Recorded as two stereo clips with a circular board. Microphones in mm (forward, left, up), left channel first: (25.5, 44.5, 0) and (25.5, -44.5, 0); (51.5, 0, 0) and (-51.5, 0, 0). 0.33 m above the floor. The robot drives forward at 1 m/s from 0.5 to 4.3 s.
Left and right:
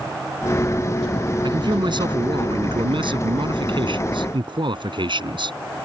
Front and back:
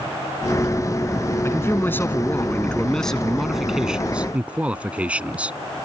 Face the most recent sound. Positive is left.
turn(degrees=-105)